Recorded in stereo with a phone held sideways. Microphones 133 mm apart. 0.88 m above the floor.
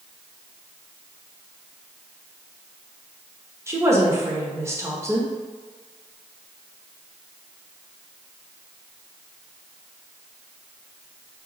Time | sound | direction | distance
3.7 | a woman speaking | 20° right (ahead or behind) | 0.8 m